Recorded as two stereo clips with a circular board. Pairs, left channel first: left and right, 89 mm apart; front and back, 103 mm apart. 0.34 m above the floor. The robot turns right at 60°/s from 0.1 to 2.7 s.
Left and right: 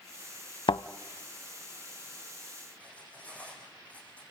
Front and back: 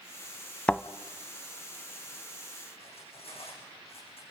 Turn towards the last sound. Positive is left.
turn(degrees=15)